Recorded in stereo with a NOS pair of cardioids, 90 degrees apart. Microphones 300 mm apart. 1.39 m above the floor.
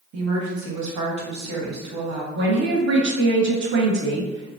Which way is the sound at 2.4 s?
40° right.